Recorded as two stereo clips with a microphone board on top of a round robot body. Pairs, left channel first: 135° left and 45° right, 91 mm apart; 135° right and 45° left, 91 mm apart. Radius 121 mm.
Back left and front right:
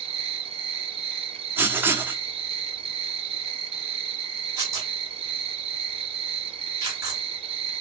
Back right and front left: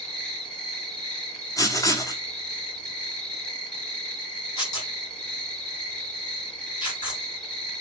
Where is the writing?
100° right, 1.1 m.